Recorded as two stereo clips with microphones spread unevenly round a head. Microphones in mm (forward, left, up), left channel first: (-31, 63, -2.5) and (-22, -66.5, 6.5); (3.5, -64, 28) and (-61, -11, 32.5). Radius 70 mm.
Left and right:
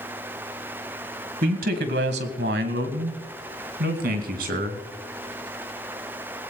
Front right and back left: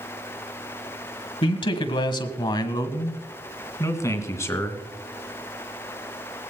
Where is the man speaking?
50° right, 1.6 m; by 4.8 s 100° right, 3 m.